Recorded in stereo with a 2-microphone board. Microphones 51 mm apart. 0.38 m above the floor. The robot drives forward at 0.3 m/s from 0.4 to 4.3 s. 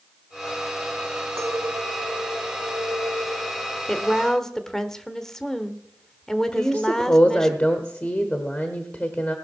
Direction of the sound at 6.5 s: 35° left (ahead or behind).